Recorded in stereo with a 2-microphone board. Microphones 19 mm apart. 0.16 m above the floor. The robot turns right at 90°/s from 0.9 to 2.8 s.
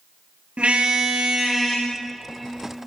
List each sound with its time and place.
0.6 s a car horn: 75° right (ahead or behind), 9 m; by 2.9 s 85° left, 9 m